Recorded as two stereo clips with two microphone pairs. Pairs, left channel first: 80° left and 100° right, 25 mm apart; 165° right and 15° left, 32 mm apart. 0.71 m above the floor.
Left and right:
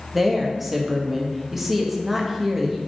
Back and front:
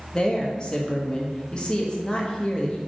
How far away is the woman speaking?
About 0.7 m.